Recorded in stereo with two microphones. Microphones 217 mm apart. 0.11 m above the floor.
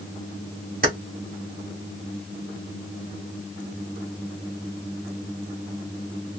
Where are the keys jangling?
45° right (ahead or behind), 1.5 m.